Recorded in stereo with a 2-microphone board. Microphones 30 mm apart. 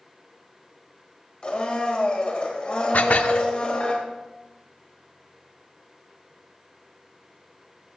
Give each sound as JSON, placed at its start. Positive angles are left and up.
{"t": 1.4, "sound": "a blender", "side_deg": 40, "distance_m": 3.0}
{"t": 2.9, "sound": "dishes clattering", "side_deg": 65, "distance_m": 0.8}